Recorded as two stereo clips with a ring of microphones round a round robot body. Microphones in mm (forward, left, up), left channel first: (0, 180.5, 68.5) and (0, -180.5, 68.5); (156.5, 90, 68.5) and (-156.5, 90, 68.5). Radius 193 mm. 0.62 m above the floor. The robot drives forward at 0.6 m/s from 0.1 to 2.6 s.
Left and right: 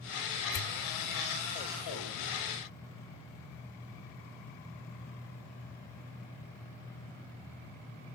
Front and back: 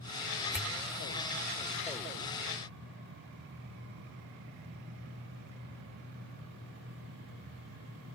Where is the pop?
90° left; by 0.8 s 110° left.